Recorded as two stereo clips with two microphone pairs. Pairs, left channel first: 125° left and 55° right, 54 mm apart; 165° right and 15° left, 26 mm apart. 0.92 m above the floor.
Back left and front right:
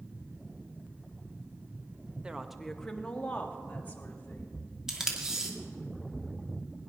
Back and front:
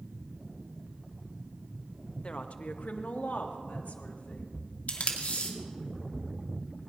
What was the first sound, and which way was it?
A woman speaking, 130° right.